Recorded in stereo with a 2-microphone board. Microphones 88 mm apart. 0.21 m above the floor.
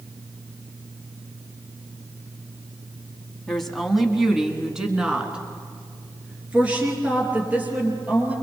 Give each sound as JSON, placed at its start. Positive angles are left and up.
{"t": 3.5, "sound": "a woman speaking", "side_deg": 5, "distance_m": 1.6}